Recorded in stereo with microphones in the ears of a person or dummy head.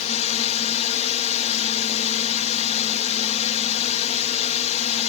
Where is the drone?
35° left (ahead or behind).